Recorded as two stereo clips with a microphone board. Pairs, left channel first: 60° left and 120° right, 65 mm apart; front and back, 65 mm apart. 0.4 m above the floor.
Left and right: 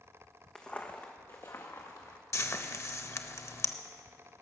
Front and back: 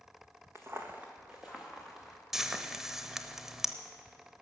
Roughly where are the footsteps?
Behind left.